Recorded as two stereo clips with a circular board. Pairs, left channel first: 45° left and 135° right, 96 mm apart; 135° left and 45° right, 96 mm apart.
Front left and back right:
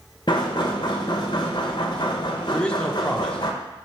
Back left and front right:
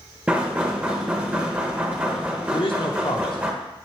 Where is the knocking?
30° left, 0.6 m.